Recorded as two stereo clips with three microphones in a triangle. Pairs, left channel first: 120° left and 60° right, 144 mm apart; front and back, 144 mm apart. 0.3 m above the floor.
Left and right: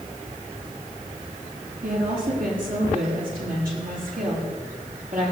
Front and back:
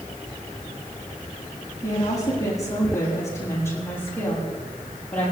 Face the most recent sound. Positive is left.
turn(degrees=-80)